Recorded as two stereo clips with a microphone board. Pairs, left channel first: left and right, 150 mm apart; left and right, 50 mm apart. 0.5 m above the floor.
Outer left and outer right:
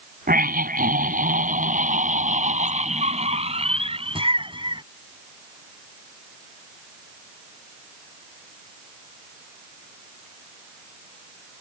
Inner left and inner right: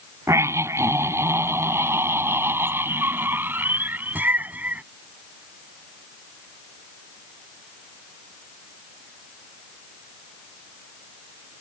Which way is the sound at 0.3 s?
70° right (ahead or behind).